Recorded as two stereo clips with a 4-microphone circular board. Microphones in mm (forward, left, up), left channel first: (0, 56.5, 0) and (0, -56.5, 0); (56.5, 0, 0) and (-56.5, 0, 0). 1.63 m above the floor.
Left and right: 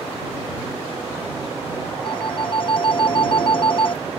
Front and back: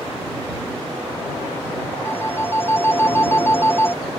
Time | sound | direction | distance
2.0 | a phone ringing | 65° left | ?